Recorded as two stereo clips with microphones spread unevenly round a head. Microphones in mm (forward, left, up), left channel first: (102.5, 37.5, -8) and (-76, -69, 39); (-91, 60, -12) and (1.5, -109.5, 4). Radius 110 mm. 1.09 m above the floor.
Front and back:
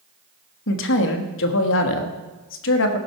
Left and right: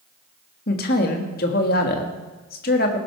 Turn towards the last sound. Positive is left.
turn(degrees=65)